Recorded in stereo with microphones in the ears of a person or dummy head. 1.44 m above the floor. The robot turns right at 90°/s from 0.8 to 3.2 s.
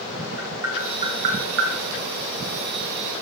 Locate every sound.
0.4 s tapping: 15° right (ahead or behind), 1.8 m; by 1.7 s 75° right (ahead or behind), 1.8 m